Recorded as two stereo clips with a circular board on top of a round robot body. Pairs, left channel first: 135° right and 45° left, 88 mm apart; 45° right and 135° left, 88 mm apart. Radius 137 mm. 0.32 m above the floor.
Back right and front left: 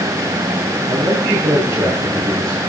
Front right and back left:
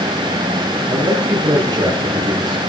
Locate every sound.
0.9 s a man speaking: 95° left, 9 m